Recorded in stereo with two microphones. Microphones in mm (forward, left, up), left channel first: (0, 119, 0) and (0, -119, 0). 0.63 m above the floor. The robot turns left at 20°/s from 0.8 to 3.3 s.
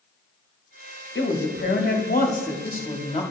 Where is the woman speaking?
70° left, 1.0 m; by 3.2 s 25° left, 1.0 m.